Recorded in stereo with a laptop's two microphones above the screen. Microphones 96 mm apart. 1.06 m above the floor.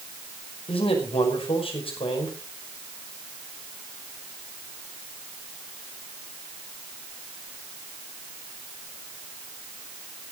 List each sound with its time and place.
0.7 s a man speaking: 80° left, 5.5 m